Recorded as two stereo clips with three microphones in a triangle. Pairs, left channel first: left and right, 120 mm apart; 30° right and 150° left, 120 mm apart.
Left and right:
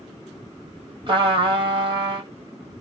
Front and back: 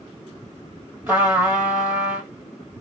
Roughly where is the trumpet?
Behind right.